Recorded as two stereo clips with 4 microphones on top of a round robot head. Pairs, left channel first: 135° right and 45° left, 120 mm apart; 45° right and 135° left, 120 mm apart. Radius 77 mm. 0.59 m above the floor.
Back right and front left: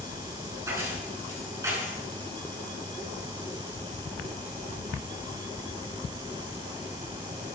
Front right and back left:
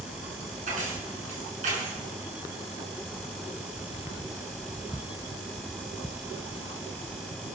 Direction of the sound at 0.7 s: 110° left.